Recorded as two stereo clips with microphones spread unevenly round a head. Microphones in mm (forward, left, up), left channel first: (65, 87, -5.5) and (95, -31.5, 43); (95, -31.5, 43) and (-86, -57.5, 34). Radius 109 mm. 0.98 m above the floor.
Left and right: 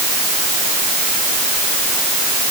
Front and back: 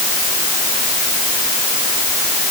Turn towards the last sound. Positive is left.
No sound to turn to.